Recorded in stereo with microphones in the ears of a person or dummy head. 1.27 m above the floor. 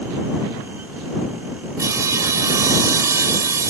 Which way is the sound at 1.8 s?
20° right (ahead or behind).